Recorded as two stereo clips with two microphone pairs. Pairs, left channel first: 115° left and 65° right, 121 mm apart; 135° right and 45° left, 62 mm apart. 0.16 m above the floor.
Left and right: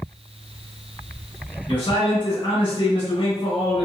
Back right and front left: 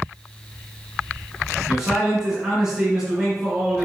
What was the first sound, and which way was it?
A man speaking, 125° left.